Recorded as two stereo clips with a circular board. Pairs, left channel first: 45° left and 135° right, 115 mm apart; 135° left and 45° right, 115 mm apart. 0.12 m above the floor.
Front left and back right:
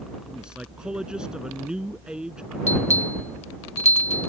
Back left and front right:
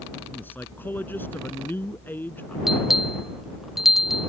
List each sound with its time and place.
0.3 s a man speaking: 155° left
2.7 s a bell: 40° left